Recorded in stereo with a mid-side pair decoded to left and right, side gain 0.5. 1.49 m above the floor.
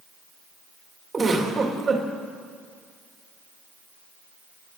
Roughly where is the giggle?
Ahead right.